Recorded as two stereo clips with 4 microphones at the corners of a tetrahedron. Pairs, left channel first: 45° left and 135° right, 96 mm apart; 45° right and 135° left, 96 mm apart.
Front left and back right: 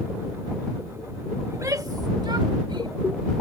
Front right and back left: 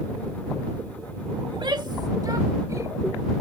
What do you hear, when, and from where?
1.5 s a shout: 165° left; by 3.0 s 165° right